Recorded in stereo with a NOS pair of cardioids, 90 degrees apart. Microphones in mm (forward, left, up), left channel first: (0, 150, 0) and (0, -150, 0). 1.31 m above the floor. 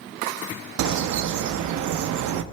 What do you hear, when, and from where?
0.8 s a bird: 70° right, 0.8 m